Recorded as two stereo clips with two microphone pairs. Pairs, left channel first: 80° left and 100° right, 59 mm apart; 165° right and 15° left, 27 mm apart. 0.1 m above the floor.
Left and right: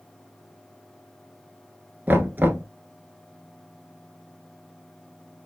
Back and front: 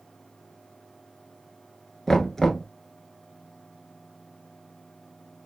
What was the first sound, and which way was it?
Knocking, 105° right.